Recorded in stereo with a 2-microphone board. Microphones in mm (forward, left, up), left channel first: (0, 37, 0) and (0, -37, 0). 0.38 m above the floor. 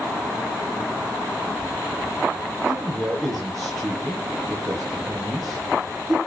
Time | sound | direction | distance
2.6 | a man speaking | 5° left (ahead or behind) | 7.5 m